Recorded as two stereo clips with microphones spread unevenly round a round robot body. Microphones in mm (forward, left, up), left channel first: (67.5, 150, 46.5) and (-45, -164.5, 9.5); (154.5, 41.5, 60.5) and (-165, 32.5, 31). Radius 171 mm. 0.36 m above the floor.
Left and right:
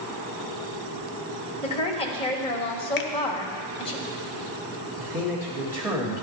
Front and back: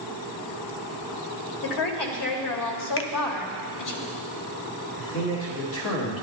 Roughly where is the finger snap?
Ahead left.